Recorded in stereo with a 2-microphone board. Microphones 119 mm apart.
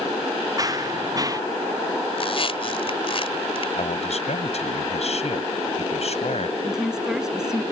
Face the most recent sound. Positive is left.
turn(degrees=-5)  # may be behind; listen again after turning